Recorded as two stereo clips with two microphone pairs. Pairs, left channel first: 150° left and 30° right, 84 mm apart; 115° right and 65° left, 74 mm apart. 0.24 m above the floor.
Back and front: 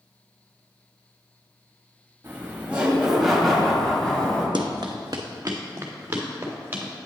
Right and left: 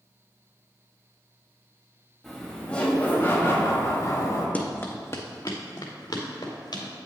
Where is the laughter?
30° right, 1.2 m; by 4.5 s 135° right, 1.9 m.